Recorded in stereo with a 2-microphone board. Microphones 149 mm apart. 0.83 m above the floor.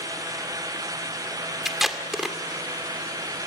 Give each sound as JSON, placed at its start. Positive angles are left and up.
{"t": 1.6, "sound": "tape being pulled", "side_deg": 0, "distance_m": 2.0}